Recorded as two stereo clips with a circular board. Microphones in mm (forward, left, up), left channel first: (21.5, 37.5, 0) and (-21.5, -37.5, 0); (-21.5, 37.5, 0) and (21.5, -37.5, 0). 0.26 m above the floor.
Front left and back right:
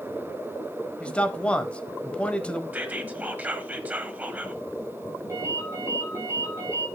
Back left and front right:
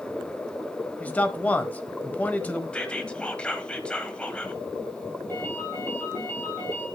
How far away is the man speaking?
About 1.0 m.